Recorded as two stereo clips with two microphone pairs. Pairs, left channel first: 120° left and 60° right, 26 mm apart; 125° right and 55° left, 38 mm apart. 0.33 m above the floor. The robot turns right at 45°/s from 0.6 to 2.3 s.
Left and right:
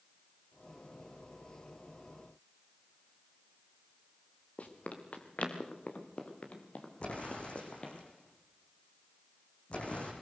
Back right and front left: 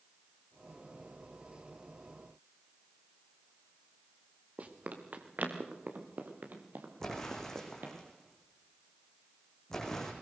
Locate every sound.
4.6 s running footsteps: 95° left, 3 m; by 8.0 s 80° left, 4.5 m
7.0 s an explosion: 155° left, 5 m